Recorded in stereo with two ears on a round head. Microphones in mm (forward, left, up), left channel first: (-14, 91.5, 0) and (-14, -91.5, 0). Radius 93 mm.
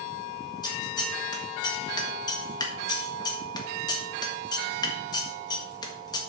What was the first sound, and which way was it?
Scissors, 20° left (ahead or behind).